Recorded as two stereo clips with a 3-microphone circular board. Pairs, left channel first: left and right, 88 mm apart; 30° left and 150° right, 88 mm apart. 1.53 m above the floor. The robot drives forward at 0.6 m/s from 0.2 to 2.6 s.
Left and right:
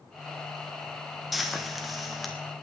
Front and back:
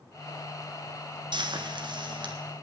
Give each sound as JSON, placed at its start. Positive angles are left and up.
{"t": 1.3, "sound": "frying", "azimuth_deg": 180, "distance_m": 1.3}